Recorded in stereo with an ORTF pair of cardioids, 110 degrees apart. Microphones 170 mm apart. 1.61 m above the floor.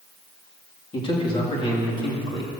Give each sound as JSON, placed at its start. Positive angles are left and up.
{"t": 0.9, "sound": "a man speaking", "azimuth_deg": 30, "distance_m": 3.0}